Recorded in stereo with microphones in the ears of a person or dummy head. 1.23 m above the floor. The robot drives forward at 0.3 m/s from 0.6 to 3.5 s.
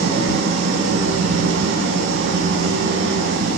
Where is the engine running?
70° right (ahead or behind), 4.5 m; by 3.6 s 60° right (ahead or behind), 5 m.